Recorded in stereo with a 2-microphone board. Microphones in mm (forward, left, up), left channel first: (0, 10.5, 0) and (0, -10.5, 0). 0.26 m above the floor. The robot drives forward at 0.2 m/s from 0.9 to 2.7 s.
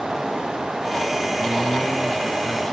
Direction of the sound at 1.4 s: 60° left (ahead or behind).